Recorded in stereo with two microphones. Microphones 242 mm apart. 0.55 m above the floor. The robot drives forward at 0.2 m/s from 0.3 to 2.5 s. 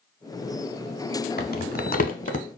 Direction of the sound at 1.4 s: 40° left (ahead or behind).